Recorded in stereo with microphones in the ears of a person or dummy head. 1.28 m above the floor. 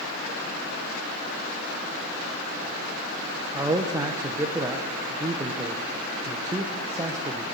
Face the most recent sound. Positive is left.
turn(degrees=-15)  # may be behind; listen again after turning